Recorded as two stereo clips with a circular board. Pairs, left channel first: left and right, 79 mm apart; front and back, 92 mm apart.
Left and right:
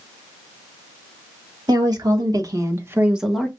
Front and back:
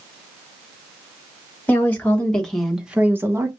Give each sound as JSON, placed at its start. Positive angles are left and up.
{"t": 1.7, "sound": "a woman speaking", "azimuth_deg": -70, "distance_m": 1.8}